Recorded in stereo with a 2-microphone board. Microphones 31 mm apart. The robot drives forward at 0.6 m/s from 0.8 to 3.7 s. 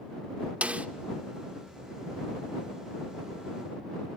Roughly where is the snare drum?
Right.